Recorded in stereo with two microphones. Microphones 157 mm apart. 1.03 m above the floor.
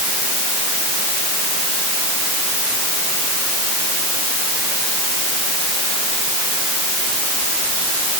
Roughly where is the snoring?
I don't hear snoring.